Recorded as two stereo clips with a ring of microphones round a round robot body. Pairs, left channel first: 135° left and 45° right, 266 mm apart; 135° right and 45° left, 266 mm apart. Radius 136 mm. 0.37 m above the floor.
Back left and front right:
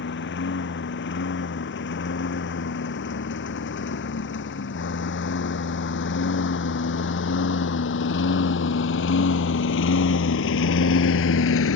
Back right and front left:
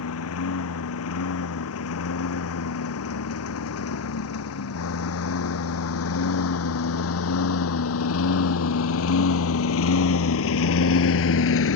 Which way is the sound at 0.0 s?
175° right.